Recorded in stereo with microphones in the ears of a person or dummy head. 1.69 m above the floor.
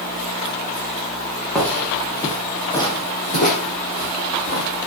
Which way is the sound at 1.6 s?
10° left (ahead or behind).